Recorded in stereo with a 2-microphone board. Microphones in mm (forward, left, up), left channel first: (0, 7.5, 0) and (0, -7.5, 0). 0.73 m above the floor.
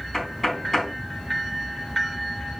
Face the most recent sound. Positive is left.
turn(degrees=5)  # may be behind; listen again after turning